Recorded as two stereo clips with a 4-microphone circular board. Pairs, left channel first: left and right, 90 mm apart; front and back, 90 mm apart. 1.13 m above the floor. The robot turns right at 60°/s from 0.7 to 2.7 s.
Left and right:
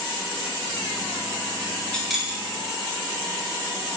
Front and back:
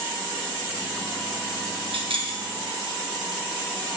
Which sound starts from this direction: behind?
Keys jangling, at 1.9 s.